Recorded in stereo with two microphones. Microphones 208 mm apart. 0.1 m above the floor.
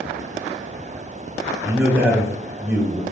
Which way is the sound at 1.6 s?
5° right (ahead or behind).